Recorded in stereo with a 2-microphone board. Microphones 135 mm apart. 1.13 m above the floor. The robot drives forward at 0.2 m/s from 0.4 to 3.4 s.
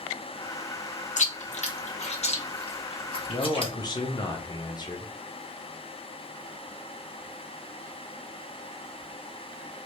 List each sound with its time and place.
1.2 s chewing: 60° left (ahead or behind), 0.7 m; by 3.7 s 40° left (ahead or behind), 0.9 m
3.3 s a man speaking: 30° left (ahead or behind), 0.6 m